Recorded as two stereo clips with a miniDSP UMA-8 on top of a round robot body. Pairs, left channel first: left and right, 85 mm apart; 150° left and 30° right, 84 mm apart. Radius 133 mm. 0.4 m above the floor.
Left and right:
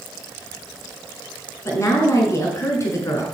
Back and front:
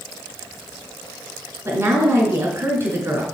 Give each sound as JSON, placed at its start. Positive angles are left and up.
{"t": 1.6, "sound": "a woman speaking", "azimuth_deg": 30, "distance_m": 5.5}